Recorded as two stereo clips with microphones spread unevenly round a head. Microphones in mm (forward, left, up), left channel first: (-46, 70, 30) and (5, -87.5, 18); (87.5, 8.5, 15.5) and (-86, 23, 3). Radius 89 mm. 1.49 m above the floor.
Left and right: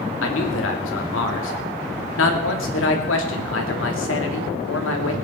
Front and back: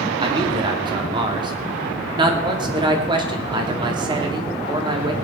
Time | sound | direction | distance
0.2 | a man speaking | 110° left | 3 m